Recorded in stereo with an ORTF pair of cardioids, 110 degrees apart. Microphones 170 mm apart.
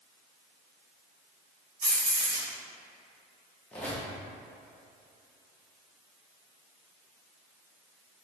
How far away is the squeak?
About 0.9 m.